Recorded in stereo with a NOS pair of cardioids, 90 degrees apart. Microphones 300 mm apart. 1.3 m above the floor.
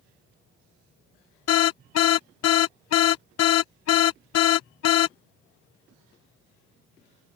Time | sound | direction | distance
1.5 | an alarm | 55° left | ?